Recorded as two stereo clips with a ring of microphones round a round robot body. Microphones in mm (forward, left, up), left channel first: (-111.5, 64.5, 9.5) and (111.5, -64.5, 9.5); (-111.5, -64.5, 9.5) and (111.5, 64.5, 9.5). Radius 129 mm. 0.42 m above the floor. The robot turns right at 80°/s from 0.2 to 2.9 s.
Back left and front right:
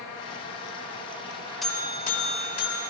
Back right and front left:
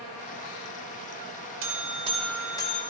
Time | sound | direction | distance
1.6 | a buzzer | 60° left | 1.3 m